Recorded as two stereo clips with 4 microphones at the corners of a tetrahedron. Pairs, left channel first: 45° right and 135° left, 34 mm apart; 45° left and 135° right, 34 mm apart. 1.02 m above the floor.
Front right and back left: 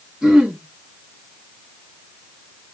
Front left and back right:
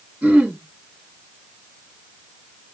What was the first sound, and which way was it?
Throat clearing, 150° right.